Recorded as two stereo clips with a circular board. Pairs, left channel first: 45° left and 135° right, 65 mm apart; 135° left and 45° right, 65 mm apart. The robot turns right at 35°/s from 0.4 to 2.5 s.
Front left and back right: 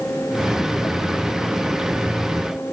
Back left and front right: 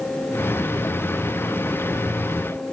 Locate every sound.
Only background noise.